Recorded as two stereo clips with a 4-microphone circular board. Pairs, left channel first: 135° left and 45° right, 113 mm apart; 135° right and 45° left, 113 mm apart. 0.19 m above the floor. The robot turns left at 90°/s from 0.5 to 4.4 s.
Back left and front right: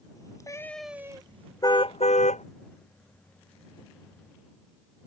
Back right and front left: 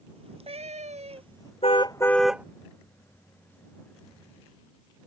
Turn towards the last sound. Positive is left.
turn(degrees=-60)